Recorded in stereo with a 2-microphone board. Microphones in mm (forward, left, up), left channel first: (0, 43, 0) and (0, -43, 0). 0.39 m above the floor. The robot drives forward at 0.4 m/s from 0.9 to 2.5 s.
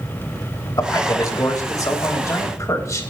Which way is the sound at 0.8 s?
50° left (ahead or behind).